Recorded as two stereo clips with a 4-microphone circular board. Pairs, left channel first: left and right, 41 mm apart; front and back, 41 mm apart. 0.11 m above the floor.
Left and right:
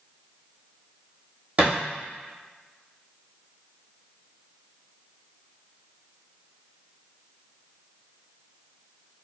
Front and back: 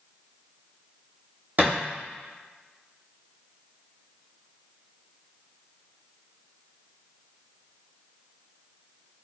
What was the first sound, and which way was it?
A thud, 140° right.